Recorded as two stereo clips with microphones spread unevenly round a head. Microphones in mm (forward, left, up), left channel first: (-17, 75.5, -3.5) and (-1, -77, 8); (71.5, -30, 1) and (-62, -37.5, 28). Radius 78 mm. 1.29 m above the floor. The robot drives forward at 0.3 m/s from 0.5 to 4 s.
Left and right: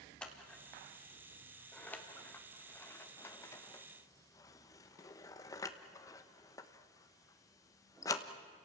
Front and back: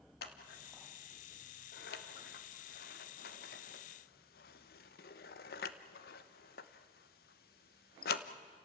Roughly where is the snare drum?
I don't hear a snare drum.